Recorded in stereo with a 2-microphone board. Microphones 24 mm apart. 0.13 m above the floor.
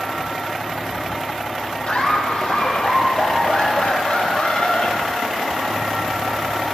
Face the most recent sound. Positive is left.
turn(degrees=65)  # may be behind; listen again after turning